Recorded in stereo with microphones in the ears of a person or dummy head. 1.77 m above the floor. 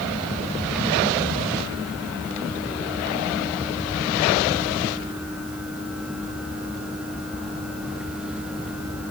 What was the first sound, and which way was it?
Only background noise.